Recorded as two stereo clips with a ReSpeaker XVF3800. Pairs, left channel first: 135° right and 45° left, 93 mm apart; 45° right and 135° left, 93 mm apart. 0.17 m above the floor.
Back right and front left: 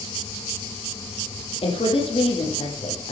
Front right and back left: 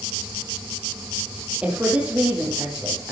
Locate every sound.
1.6 s a woman speaking: 145° right, 5.5 m